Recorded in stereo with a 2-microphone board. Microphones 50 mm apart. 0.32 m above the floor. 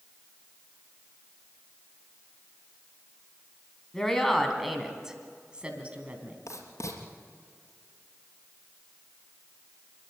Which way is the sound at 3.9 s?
10° left (ahead or behind).